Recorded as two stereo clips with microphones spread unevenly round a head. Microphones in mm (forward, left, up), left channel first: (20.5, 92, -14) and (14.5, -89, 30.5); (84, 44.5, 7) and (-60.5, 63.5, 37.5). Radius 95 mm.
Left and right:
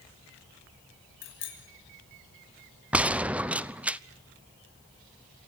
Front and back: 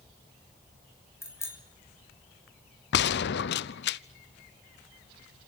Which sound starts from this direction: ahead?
A gunshot, at 2.9 s.